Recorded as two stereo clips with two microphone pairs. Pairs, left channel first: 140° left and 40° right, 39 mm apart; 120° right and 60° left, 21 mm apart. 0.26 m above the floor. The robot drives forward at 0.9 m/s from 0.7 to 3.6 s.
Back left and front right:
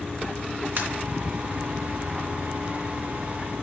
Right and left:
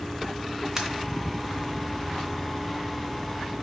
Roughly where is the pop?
Ahead.